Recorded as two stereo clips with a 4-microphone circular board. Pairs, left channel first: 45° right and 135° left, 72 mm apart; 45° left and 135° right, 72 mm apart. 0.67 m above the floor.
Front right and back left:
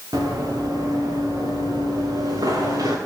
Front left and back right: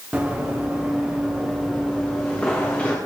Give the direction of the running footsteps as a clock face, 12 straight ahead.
7 o'clock.